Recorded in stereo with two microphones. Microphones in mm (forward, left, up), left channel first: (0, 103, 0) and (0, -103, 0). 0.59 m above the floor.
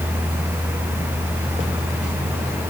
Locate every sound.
Only background noise.